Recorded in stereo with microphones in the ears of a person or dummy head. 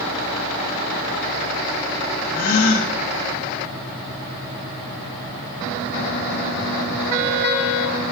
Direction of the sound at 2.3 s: 50° left (ahead or behind).